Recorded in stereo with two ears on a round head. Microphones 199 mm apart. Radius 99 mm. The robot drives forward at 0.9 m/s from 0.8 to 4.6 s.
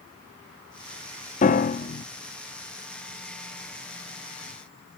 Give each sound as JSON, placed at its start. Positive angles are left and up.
{"t": 1.4, "sound": "a piano", "side_deg": 35, "distance_m": 0.5}